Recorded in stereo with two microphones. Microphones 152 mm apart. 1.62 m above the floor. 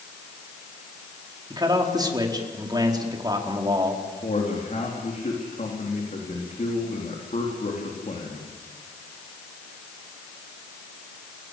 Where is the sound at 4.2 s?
55° left (ahead or behind), 4 m.